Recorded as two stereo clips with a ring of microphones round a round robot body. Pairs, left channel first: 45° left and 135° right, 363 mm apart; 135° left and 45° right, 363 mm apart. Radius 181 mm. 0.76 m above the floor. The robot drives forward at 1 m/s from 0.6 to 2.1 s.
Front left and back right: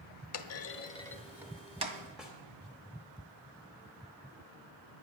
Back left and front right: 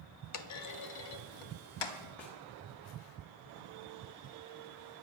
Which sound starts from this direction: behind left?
A snare drum, at 2.2 s.